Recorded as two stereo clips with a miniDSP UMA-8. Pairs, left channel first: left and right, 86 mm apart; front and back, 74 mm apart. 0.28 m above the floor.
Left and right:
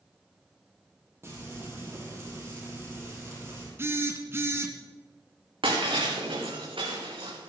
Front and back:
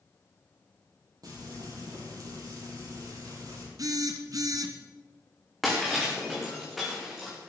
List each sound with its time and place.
1.2 s frying: 150° right, 5.5 m
3.8 s a phone buzzing: 150° right, 1.4 m
5.6 s breaking glass: 90° right, 4 m